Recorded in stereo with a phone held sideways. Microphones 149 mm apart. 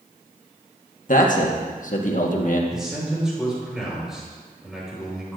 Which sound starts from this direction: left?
A man speaking, at 1.1 s.